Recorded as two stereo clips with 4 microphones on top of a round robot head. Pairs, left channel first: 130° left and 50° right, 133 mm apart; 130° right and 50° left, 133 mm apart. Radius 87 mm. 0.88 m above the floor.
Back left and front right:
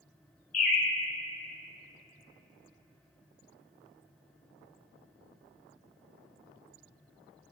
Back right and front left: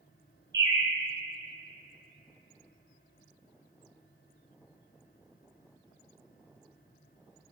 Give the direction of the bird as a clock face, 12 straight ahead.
8 o'clock.